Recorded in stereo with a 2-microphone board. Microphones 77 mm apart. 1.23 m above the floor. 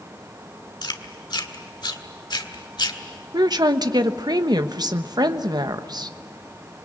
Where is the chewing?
65° left (ahead or behind), 1.6 m.